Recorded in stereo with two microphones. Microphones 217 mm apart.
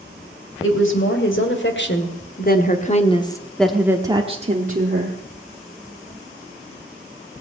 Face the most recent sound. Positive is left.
turn(degrees=-50)  # may be behind; listen again after turning